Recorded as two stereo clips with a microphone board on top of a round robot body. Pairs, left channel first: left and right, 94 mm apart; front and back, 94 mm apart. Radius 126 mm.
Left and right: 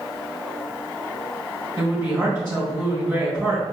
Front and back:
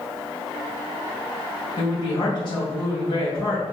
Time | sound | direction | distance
1.8 | a woman speaking | 25° right | 1.8 m